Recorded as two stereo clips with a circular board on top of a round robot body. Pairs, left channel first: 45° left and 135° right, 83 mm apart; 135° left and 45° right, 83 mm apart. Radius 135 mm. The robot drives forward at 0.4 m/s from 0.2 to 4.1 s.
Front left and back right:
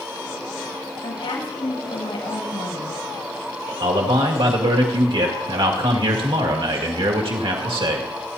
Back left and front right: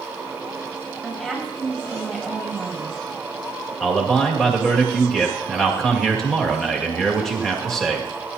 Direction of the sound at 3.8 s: 140° right.